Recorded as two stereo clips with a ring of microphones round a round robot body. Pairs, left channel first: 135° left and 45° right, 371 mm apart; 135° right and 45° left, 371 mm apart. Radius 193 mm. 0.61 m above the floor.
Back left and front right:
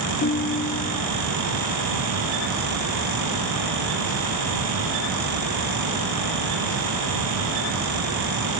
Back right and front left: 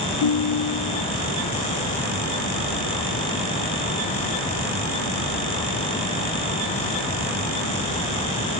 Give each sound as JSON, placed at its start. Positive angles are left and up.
{"t": 0.2, "sound": "a ringtone", "azimuth_deg": -160, "distance_m": 1.1}